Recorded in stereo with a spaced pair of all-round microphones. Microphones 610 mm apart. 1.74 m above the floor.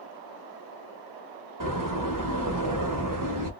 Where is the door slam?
35° right (ahead or behind), 0.9 m.